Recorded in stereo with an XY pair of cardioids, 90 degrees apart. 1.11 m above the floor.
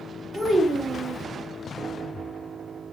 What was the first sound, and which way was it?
A child speaking, 45° right.